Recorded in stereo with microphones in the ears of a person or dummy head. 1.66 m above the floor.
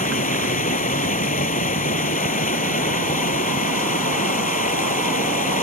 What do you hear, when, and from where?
0.0 s running water: 35° left (ahead or behind)